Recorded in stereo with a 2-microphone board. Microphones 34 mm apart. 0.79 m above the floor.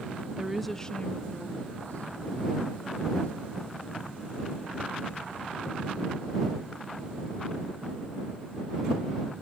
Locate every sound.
0.4 s a woman speaking: 20° right (ahead or behind); by 8.2 s 65° left (ahead or behind)